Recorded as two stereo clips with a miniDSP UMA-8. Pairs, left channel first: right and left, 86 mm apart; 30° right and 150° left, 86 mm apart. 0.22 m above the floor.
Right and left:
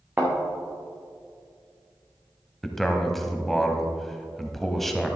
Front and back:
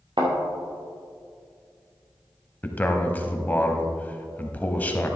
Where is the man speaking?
5° right, 1.0 m.